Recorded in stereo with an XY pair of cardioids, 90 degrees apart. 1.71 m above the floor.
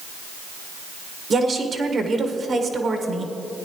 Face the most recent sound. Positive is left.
turn(degrees=-50)